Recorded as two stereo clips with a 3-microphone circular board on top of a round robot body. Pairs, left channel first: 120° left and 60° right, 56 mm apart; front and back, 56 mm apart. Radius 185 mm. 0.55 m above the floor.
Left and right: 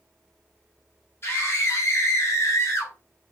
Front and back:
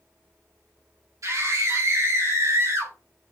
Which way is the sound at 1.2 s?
165° left.